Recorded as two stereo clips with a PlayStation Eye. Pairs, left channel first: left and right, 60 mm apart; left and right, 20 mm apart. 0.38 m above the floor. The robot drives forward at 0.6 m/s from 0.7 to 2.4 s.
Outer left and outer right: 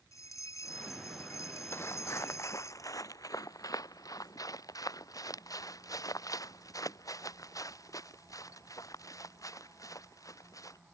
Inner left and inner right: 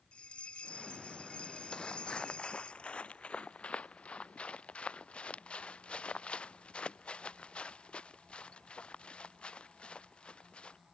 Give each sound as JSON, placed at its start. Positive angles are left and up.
{"t": 0.1, "sound": "a bell", "side_deg": 60}
{"t": 1.7, "sound": "footsteps", "side_deg": 40}